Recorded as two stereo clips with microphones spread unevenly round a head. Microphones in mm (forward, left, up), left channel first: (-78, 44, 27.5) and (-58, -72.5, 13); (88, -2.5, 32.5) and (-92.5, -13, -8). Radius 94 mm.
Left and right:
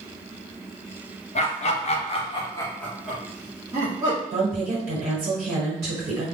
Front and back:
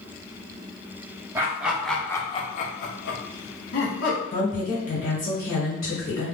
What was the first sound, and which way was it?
Laughter, 115° left.